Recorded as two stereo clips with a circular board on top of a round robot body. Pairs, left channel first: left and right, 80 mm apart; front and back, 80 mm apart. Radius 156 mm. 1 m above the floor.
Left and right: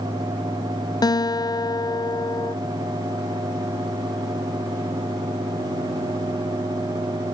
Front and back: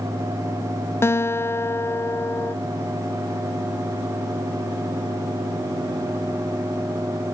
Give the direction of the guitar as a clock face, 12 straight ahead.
10 o'clock.